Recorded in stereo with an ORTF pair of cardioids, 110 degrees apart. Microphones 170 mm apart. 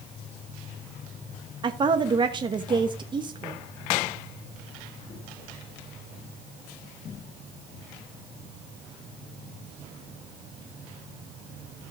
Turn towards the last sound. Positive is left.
turn(degrees=-25)